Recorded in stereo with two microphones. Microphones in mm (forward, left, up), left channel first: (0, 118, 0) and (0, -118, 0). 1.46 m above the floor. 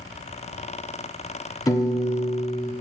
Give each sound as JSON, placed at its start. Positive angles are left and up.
{"t": 1.7, "sound": "a piano", "side_deg": 15, "distance_m": 1.0}